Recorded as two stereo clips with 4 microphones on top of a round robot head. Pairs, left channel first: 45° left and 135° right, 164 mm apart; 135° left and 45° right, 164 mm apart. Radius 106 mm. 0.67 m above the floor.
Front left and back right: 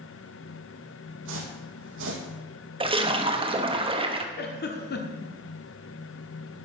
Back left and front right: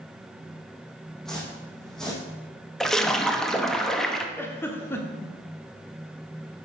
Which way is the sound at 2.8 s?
140° right.